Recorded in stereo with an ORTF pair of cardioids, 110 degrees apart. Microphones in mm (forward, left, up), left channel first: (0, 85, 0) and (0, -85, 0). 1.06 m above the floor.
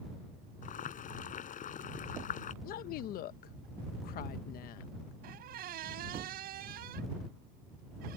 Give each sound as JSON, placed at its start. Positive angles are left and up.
{"t": 0.6, "sound": "boiling", "azimuth_deg": 50}
{"t": 2.6, "sound": "a woman speaking", "azimuth_deg": 70}
{"t": 5.2, "sound": "a squeak", "azimuth_deg": -70}